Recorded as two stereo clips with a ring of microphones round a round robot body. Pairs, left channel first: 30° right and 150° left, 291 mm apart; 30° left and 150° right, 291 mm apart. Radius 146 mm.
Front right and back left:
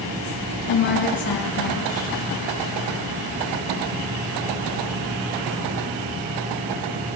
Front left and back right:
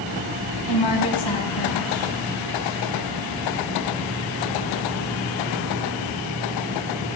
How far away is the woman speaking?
About 4 m.